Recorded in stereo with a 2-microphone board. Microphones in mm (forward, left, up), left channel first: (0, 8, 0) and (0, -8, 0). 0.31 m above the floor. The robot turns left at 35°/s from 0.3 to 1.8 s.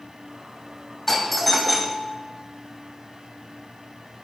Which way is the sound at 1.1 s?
15° left (ahead or behind).